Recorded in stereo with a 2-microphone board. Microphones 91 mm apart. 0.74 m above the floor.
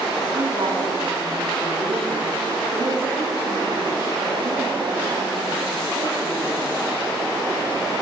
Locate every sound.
0.3 s a woman speaking: 80° right, 7 m